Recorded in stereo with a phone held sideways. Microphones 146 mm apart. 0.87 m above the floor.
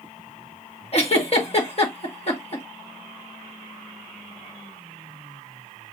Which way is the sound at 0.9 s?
45° left (ahead or behind).